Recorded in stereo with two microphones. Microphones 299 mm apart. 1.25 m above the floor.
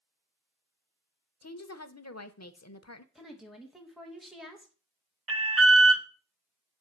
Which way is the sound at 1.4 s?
60° left (ahead or behind).